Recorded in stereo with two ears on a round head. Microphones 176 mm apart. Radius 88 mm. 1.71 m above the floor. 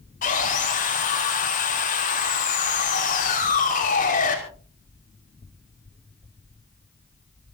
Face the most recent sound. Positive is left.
turn(degrees=45)  # may be behind; listen again after turning